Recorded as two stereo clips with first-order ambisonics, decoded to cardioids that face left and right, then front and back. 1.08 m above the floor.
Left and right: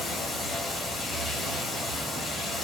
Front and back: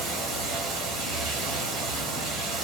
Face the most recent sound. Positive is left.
turn(degrees=170)